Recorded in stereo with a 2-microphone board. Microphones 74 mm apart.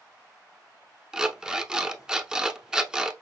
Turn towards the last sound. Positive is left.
turn(degrees=-10)  # may be behind; listen again after turning